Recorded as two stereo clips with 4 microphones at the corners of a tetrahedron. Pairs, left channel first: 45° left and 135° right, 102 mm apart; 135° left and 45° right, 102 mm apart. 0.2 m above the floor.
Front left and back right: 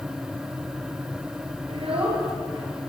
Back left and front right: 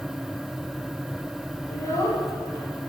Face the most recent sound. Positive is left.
turn(degrees=-165)